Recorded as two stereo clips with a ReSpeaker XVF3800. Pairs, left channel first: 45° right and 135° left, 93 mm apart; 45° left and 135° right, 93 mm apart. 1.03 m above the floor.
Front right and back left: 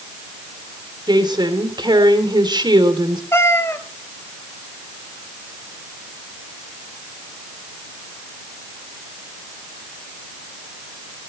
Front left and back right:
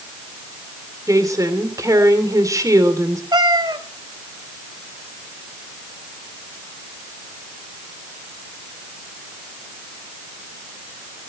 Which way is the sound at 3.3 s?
105° right.